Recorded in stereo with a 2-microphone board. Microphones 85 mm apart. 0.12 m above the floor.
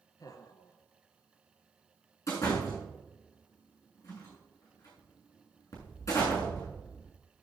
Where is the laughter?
45° left (ahead or behind), 1.9 m.